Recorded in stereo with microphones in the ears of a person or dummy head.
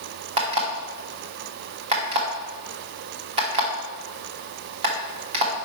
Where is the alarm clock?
35° right (ahead or behind), 1.4 m.